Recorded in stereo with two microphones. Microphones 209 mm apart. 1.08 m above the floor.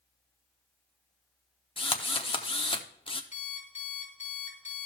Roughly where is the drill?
Left.